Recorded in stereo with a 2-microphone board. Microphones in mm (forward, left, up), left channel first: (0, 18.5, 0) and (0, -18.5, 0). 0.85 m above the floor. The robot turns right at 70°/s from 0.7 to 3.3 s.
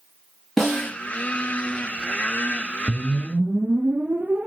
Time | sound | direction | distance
0.6 | a snare drum | centre (ahead or behind) | 5 m
2.9 | a whoosh | 50° right (ahead or behind) | 0.9 m